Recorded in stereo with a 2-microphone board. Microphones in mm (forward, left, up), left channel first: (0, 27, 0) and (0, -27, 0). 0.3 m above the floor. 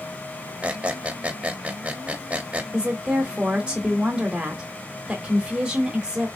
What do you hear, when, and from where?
0.6 s a squeak: 25° right (ahead or behind), 0.6 m
2.7 s a woman speaking: 20° right (ahead or behind), 1.0 m